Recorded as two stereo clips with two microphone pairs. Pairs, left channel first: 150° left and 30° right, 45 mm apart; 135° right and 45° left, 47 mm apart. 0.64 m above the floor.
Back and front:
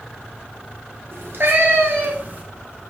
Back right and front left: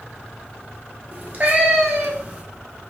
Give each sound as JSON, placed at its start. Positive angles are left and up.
{"t": 1.1, "sound": "a cat meowing", "azimuth_deg": -5, "distance_m": 1.3}